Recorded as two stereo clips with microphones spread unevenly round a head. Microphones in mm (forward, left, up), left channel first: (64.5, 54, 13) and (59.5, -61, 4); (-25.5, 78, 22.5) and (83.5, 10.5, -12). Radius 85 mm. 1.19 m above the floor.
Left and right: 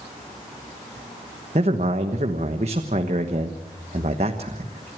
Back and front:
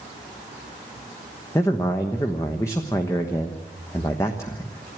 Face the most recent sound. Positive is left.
turn(degrees=-135)